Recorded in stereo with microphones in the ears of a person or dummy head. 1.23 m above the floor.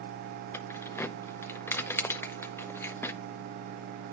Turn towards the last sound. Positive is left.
turn(degrees=10)  # may be behind; listen again after turning